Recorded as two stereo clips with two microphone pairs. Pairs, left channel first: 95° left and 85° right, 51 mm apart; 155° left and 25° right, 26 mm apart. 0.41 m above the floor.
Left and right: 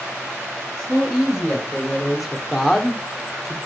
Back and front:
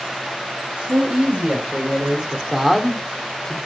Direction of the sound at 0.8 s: 5° left.